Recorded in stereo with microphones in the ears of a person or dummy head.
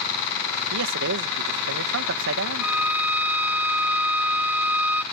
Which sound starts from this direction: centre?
A violin, at 2.6 s.